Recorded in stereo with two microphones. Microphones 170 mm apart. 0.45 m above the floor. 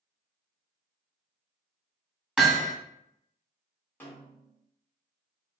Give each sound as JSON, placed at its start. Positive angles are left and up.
{"t": 2.4, "sound": "hammering", "side_deg": -5, "distance_m": 1.5}
{"t": 4.0, "sound": "a snare drum", "side_deg": 10, "distance_m": 1.2}